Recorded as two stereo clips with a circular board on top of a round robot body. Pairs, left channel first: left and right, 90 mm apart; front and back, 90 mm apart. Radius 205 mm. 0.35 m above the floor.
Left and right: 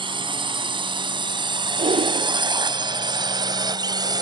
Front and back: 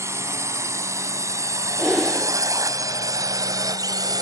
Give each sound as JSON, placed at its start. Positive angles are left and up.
{"t": 0.0, "sound": "a drone", "azimuth_deg": -120}
{"t": 1.8, "sound": "breathing", "azimuth_deg": -90}